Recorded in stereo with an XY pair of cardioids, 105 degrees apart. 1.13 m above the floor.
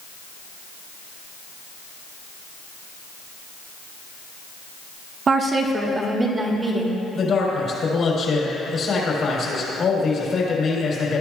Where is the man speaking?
55° left, 3.5 m.